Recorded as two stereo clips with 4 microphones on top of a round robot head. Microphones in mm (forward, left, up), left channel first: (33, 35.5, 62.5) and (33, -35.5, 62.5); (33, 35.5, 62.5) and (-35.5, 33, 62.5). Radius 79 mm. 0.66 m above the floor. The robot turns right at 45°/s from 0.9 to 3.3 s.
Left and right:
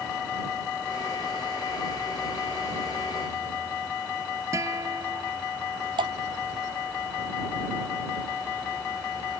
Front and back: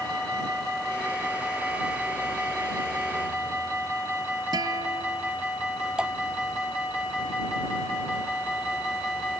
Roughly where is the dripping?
Right.